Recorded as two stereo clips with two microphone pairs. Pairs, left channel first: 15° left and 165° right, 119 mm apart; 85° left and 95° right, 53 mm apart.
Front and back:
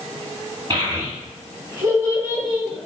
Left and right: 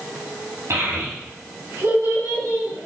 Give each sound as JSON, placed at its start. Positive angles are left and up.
{"t": 0.7, "sound": "a child speaking", "azimuth_deg": -115, "distance_m": 2.5}